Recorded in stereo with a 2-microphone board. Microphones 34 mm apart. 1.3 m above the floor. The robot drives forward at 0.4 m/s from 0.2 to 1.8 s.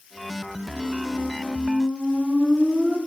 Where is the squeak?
40° right (ahead or behind), 1.8 m; by 3.0 s 35° right (ahead or behind), 2 m.